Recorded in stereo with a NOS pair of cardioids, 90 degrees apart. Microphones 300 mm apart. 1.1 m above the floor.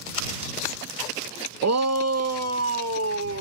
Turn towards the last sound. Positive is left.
turn(degrees=-50)